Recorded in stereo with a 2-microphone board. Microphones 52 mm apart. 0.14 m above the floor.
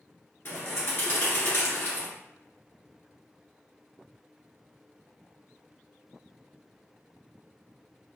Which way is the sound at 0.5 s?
50° left (ahead or behind).